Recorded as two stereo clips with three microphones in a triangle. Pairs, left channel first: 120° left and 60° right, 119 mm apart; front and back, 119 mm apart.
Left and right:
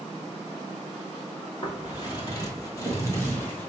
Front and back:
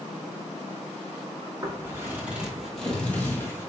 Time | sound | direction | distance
1.6 | footsteps | 140° left | 1.8 m